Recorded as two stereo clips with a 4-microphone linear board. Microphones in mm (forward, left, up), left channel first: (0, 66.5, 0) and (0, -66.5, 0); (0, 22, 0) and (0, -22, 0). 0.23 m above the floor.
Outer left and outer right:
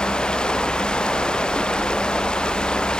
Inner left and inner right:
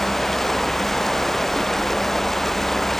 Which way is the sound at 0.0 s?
5° left (ahead or behind).